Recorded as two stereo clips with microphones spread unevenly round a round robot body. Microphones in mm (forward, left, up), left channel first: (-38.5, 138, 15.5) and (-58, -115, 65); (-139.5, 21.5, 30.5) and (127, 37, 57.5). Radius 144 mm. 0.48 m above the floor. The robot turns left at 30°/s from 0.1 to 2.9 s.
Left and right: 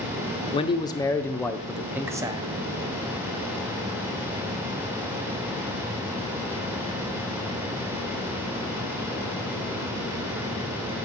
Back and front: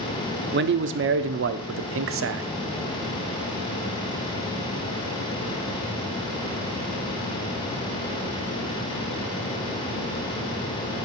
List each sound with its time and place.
0.5 s a man speaking: 40° left, 0.9 m; by 2.5 s 15° right, 0.9 m